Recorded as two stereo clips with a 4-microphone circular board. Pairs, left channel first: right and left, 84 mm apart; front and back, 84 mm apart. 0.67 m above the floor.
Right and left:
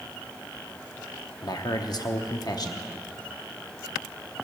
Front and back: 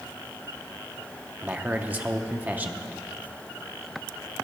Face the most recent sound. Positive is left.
turn(degrees=-115)